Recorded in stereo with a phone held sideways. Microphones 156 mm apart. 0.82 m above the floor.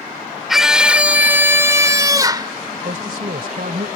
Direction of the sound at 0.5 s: Centre (ahead or behind).